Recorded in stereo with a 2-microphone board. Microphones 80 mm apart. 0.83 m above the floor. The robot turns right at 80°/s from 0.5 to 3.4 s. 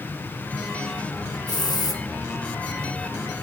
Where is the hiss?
75° left, 1.1 m; by 2.0 s 120° left, 1.1 m.